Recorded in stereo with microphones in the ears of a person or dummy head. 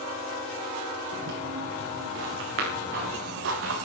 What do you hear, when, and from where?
1.1 s footsteps: 55° right (ahead or behind), 5.5 m; by 3.9 s 70° right (ahead or behind), 5.5 m